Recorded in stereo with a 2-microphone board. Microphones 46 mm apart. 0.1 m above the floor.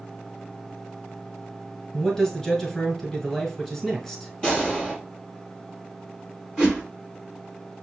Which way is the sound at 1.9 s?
10° left (ahead or behind).